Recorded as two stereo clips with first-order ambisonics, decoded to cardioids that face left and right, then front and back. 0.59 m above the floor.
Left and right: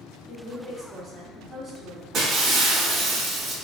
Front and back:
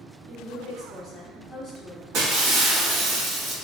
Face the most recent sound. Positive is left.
turn(degrees=-150)